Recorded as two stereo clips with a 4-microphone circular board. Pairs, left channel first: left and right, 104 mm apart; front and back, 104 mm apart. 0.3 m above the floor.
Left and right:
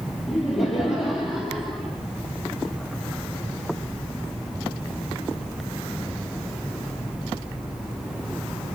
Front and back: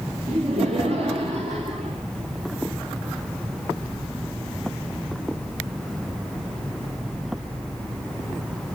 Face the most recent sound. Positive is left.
turn(degrees=180)